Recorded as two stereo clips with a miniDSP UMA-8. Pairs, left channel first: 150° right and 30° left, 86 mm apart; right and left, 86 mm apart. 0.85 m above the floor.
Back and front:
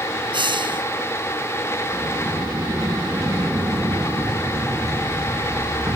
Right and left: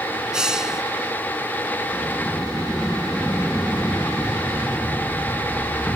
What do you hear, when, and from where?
0.3 s a hiss: 10° left
1.9 s a sliding door: 15° right